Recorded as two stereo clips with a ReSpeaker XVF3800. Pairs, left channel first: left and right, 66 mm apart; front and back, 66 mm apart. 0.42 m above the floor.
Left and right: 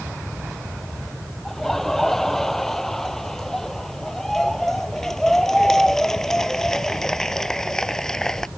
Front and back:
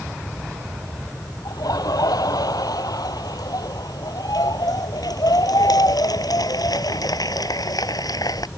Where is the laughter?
5° left.